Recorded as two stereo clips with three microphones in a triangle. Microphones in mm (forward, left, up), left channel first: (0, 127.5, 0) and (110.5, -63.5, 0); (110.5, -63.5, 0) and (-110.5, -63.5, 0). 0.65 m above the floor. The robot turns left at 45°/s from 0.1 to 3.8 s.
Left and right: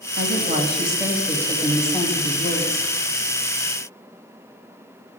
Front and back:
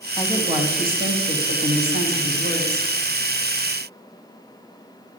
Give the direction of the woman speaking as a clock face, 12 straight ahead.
3 o'clock.